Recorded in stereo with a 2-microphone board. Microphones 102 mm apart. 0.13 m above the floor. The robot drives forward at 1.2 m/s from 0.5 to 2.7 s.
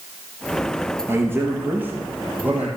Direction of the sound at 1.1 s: 20° right (ahead or behind).